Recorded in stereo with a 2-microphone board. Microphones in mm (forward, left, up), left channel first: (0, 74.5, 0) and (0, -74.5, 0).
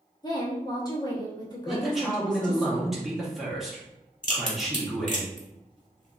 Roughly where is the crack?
Left.